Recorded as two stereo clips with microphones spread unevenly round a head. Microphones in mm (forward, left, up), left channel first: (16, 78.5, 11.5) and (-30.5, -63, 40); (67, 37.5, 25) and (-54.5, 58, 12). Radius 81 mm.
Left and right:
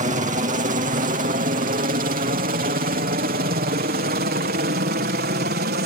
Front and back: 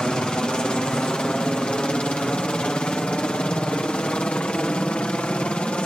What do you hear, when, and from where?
0.0 s a helicopter: 95° right